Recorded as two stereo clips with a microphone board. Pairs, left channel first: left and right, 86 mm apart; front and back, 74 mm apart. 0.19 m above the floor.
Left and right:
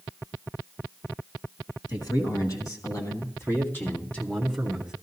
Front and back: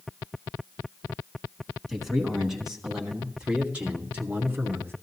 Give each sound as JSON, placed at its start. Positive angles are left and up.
{"t": 1.9, "sound": "a man speaking", "azimuth_deg": 90, "distance_m": 2.5}